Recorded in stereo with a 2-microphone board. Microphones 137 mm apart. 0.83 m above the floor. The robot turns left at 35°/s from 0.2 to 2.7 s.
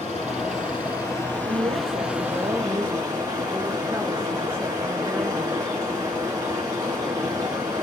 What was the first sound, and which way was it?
Running water, 55° left.